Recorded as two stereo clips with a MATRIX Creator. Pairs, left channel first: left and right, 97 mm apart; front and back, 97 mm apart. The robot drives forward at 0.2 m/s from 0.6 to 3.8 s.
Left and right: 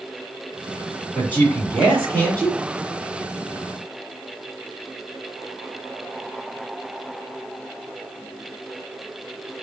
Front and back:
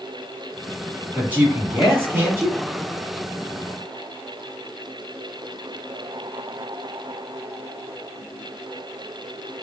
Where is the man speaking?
135° left, 1.7 m; by 2.6 s 145° left, 1.8 m.